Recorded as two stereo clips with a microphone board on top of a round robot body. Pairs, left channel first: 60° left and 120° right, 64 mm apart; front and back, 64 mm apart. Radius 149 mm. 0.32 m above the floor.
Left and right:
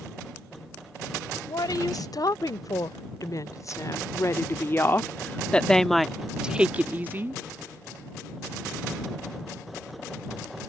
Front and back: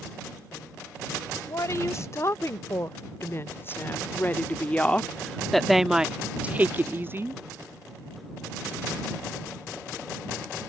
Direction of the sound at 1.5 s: 45° left.